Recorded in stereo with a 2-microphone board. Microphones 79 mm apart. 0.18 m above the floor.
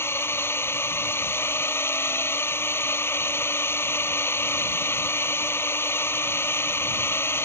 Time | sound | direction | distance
0.0 | a drone | 30° left (ahead or behind) | ?